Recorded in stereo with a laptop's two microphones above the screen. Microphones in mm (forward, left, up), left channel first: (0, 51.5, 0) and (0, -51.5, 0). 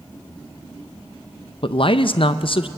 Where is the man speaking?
60° left (ahead or behind), 0.5 m.